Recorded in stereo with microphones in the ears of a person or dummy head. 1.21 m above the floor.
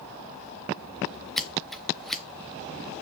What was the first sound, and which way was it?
Scissors, 5° left (ahead or behind).